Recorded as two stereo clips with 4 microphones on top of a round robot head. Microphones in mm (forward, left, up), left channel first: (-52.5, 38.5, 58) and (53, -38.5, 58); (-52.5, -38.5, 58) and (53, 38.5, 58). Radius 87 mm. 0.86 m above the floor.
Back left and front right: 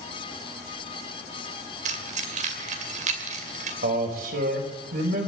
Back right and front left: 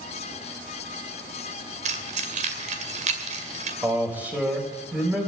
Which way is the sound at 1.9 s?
Straight ahead.